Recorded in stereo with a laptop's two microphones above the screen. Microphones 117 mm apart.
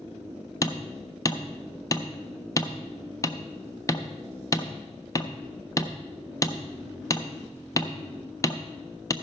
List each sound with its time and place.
0.6 s hammering: 30° left (ahead or behind), 0.6 m